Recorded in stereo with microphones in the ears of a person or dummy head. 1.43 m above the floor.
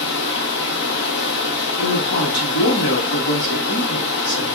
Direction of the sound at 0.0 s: 65° left (ahead or behind).